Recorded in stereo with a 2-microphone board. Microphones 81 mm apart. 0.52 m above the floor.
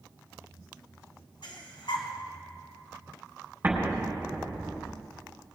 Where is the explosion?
25° right (ahead or behind), 4 m.